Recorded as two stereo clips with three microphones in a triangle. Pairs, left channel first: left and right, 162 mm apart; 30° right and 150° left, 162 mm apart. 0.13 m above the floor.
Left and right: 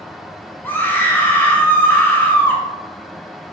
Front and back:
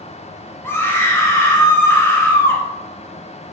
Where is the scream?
25° left, 1.2 m.